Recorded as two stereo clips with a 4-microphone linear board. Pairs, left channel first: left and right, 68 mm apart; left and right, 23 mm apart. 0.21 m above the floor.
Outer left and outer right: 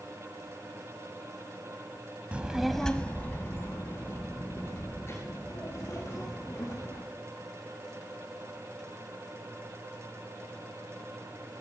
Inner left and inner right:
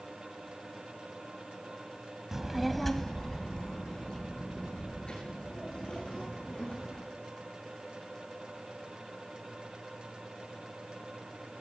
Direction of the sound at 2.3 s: 20° right (ahead or behind).